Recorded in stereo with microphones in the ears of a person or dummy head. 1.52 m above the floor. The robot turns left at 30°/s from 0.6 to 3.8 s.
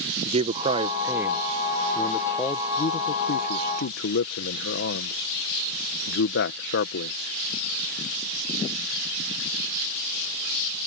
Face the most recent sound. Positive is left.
turn(degrees=60)  # may be behind; listen again after turning